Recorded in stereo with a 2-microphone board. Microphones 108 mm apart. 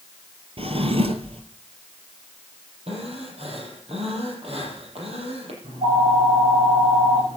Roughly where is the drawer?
Right.